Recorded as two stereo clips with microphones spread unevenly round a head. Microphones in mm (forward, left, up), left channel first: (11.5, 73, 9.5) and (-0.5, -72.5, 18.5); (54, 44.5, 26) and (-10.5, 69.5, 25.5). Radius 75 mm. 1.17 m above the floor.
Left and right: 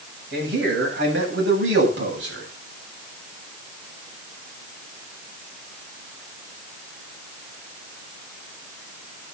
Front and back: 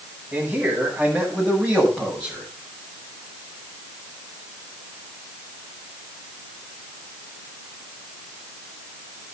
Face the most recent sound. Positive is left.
turn(degrees=-100)